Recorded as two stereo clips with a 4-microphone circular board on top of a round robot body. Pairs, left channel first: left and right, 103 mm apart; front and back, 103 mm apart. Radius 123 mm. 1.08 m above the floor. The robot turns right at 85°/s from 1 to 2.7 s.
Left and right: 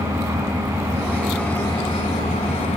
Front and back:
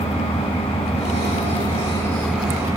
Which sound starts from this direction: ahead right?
An engine running, at 0.0 s.